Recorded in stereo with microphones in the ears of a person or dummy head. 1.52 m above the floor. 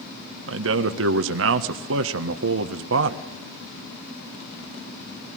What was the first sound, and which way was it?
A man speaking, 75° right (ahead or behind).